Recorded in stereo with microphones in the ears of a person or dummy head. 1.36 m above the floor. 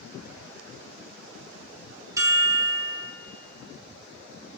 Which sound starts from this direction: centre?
A chime, at 2.2 s.